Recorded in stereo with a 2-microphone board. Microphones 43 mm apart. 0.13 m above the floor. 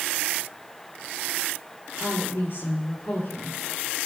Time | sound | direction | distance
2.0 | a woman speaking | 55° left (ahead or behind) | 2.5 m